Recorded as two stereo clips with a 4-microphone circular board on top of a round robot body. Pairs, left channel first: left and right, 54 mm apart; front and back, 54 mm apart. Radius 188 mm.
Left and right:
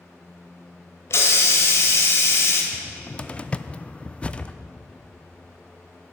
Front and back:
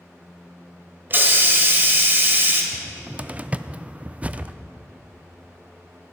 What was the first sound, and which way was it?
A hiss, 130° left.